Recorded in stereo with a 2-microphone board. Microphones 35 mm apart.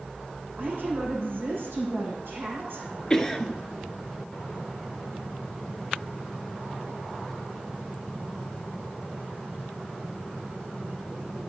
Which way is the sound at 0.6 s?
75° right (ahead or behind).